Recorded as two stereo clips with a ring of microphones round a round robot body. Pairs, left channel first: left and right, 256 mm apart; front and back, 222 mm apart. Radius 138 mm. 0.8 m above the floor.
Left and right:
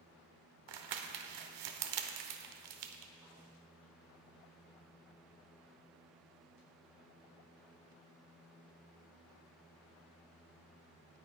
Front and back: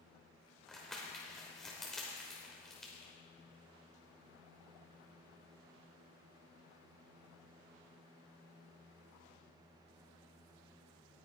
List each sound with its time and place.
0.7 s crumpling: 90° right, 1.0 m